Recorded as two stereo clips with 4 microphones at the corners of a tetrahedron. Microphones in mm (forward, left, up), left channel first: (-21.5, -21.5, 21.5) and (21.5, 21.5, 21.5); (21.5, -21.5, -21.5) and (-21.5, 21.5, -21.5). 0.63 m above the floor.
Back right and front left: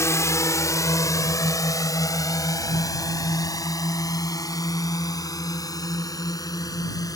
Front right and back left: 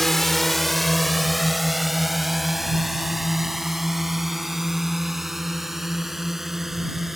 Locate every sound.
0.0 s a drone: 130° right; by 7.2 s 140° right